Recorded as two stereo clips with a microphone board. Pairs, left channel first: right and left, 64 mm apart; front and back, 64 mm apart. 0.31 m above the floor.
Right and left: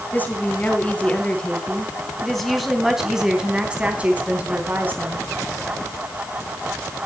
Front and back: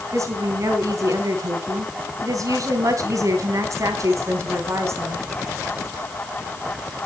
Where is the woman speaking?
150° right, 3.5 m; by 5.2 s 140° left, 3.5 m.